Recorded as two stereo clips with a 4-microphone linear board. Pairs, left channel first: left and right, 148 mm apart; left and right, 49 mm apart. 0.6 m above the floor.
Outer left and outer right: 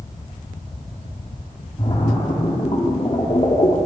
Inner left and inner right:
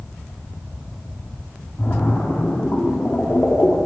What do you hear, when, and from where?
1.8 s a splash: 45° left (ahead or behind), 1.6 m